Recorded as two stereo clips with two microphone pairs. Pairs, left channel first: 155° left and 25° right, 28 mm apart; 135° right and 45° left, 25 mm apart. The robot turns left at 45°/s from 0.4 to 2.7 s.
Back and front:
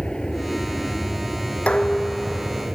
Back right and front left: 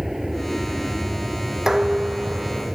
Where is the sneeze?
No sneeze in this recording.